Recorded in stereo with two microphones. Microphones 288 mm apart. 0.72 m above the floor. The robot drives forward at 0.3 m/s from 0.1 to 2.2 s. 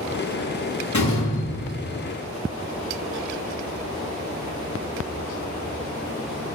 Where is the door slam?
80° left, 7 m; by 2.0 s 85° left, 7 m.